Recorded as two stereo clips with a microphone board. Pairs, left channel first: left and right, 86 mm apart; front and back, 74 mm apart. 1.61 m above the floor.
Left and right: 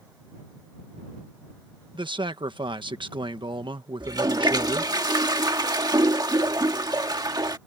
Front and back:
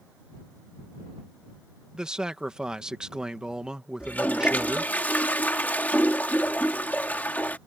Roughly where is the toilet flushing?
Ahead right.